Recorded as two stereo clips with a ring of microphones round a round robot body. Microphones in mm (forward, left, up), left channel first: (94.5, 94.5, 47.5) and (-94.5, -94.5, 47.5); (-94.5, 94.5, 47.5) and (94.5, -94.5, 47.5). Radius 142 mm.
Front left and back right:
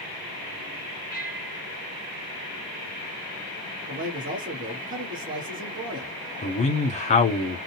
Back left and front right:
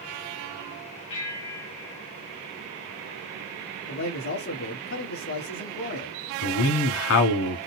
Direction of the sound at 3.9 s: 165° left.